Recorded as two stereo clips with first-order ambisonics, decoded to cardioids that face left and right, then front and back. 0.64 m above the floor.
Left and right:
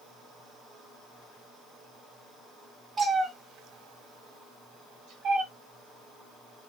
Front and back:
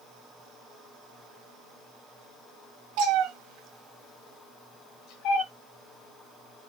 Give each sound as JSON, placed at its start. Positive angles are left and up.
{"t": 3.0, "sound": "a cat meowing", "azimuth_deg": -165, "distance_m": 1.3}